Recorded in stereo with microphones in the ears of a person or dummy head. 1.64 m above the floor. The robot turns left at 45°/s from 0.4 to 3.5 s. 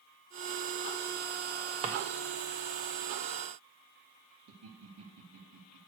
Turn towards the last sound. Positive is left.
turn(degrees=-80)